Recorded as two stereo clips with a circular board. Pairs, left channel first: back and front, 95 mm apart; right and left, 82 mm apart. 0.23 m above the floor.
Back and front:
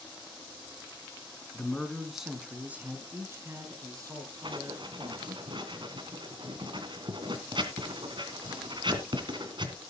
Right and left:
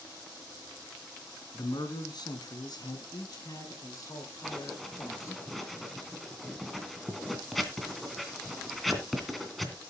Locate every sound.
1.5 s a man speaking: 105° right, 3 m; by 5.4 s 40° right, 5.5 m
4.4 s writing: straight ahead, 2.5 m